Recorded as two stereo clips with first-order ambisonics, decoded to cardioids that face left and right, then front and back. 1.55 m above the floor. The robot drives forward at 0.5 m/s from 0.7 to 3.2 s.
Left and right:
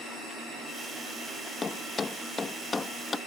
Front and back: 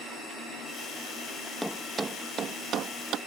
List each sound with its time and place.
1.6 s a thud: 95° left; by 3.2 s 160° left